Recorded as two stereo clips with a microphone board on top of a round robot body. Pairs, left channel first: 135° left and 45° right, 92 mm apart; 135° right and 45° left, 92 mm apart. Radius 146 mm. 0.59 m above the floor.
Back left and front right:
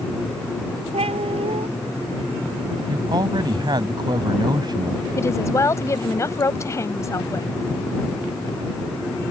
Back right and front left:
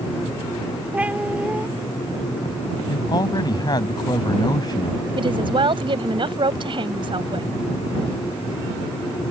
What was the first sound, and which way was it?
A cat meowing, 30° right.